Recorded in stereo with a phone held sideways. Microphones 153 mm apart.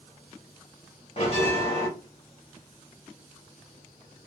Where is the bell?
40° left (ahead or behind), 1.3 m.